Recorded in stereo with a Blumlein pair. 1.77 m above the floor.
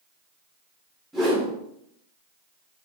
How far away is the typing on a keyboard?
I don't hear typing on a keyboard.